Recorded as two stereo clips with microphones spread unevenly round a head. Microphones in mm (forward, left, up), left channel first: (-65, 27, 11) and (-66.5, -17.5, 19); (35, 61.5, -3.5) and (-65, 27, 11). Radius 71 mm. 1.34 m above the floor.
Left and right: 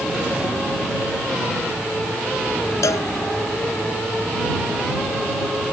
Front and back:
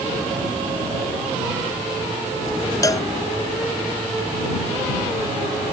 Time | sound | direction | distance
2.8 | a cowbell | 80° left | ?